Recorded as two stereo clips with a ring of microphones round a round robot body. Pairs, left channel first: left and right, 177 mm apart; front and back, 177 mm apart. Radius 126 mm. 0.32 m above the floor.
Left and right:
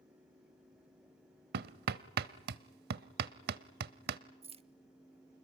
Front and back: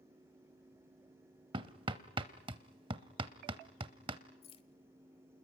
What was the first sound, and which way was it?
Hammering, 115° right.